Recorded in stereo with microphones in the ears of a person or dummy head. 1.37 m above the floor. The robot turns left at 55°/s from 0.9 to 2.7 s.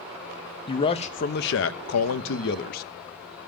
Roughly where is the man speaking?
Behind left.